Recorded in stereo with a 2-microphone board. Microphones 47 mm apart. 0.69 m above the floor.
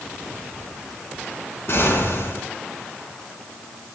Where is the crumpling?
No crumpling in this recording.